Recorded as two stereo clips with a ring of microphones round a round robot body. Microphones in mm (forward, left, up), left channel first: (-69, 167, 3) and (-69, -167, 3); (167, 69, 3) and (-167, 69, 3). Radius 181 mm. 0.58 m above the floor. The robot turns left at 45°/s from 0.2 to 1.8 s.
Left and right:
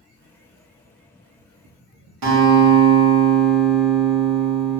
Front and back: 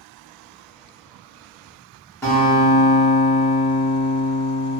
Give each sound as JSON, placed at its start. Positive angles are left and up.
{"t": 2.2, "sound": "a guitar", "azimuth_deg": -80, "distance_m": 0.9}